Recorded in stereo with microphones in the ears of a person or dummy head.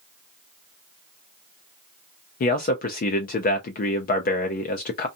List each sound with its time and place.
2.4 s a man speaking: 45° left (ahead or behind), 0.5 m